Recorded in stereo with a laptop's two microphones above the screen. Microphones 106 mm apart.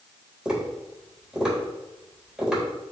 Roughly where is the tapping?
Centre.